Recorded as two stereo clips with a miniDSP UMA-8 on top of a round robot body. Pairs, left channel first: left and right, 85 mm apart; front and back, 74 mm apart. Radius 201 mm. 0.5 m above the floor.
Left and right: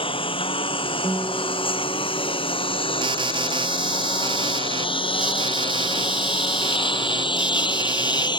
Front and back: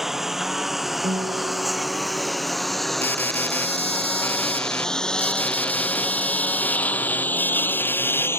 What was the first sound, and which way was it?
A lawn mower, 95° left.